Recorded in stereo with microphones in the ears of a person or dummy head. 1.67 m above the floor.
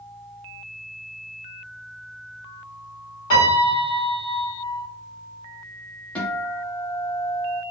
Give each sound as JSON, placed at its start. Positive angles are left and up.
{"t": 3.3, "sound": "a piano", "side_deg": 25, "distance_m": 1.7}
{"t": 6.2, "sound": "a guitar", "side_deg": 5, "distance_m": 0.9}